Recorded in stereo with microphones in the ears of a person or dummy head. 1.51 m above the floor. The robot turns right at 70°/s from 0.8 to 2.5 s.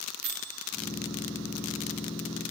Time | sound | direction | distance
0.2 | a microwave | 50° right (ahead or behind) | 0.8 m